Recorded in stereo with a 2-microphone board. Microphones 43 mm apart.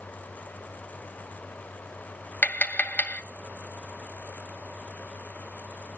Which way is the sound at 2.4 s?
45° left (ahead or behind).